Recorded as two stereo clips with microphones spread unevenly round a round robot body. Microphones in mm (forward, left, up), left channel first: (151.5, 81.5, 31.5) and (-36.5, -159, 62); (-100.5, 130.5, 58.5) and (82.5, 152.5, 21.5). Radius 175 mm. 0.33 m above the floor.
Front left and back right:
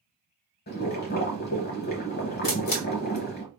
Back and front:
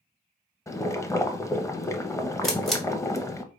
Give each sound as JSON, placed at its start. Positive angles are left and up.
{"t": 0.7, "sound": "boiling", "azimuth_deg": 110, "distance_m": 0.8}
{"t": 2.4, "sound": "a camera shutter", "azimuth_deg": 85, "distance_m": 1.6}